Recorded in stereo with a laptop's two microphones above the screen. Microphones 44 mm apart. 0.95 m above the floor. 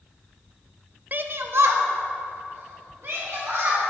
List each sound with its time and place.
1.1 s a shout: 40° right (ahead or behind), 0.5 m; by 3.8 s 70° right (ahead or behind), 4 m